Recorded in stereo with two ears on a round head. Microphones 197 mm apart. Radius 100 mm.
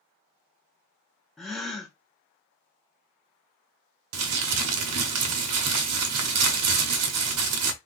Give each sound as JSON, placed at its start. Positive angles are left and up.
{"t": 1.4, "sound": "a gasp", "side_deg": 0, "distance_m": 0.7}
{"t": 4.1, "sound": "crumpling", "side_deg": -75, "distance_m": 0.7}